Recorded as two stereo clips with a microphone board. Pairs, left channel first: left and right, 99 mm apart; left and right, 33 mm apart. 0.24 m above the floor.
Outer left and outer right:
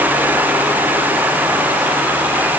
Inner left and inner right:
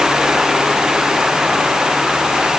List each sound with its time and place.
Only background noise.